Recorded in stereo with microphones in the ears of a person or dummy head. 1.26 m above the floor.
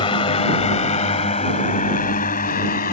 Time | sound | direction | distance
0.0 | a drone | 20° left (ahead or behind) | ?